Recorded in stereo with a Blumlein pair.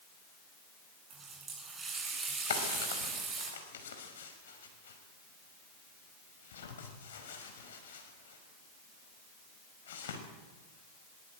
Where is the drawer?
60° left, 5.5 m.